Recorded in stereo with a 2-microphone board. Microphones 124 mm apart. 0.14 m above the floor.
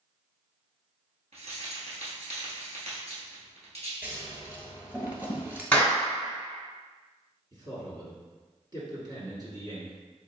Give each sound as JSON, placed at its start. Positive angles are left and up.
{"t": 1.3, "sound": "keys jangling", "side_deg": -60, "distance_m": 1.5}
{"t": 4.0, "sound": "scissors", "side_deg": -15, "distance_m": 1.0}
{"t": 5.7, "sound": "a clap", "side_deg": 10, "distance_m": 1.2}
{"t": 7.5, "sound": "a man speaking", "side_deg": -35, "distance_m": 1.6}